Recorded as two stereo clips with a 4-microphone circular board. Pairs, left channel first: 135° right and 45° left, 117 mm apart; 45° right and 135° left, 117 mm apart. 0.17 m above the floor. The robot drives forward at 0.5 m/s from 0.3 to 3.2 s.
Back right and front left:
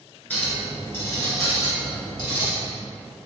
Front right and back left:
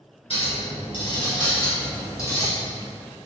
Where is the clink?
60° right, 1.8 m; by 2.5 s 105° right, 1.7 m.